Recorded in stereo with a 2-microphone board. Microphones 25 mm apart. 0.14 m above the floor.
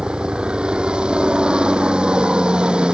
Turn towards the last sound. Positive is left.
turn(degrees=-40)  # may be behind; listen again after turning